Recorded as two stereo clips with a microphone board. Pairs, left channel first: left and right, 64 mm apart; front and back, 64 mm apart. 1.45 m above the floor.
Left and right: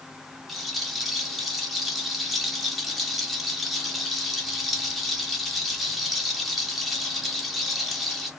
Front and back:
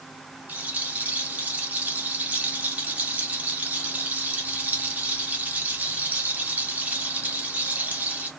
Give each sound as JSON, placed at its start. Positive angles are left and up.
{"t": 0.5, "sound": "a rattle", "azimuth_deg": 175, "distance_m": 1.1}